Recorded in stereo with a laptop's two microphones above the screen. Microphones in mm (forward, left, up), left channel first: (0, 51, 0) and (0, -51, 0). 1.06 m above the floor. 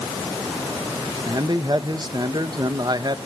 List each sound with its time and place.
1.3 s a man speaking: 45° right (ahead or behind), 1.3 m